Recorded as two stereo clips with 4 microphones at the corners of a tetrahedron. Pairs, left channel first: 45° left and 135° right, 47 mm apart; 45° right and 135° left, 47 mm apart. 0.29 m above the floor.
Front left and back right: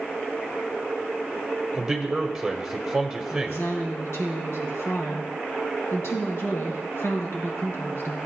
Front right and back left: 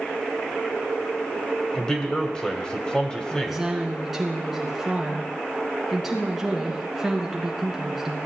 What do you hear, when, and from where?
1.7 s a man speaking: 70° right, 1.4 m
3.3 s a woman speaking: 50° left, 2.5 m